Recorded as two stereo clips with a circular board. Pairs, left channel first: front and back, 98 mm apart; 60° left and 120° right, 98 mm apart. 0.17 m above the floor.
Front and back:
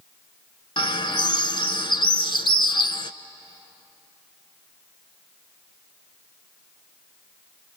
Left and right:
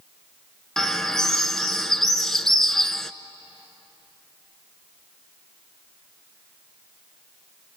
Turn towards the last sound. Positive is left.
turn(degrees=-25)